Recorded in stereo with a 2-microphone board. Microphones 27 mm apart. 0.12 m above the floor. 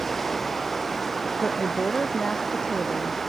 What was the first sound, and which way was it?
Running water, 5° left (ahead or behind).